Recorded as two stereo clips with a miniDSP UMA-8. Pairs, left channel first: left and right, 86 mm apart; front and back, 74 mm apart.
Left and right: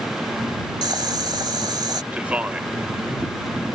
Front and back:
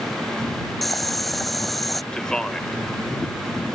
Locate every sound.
0.8 s boiling: 85° right
2.1 s a man speaking: 55° right